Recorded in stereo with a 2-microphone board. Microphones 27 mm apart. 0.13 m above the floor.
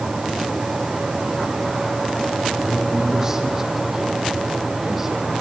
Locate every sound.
2.6 s a man speaking: 20° right (ahead or behind), 7 m; by 5.3 s 10° right (ahead or behind), 5.5 m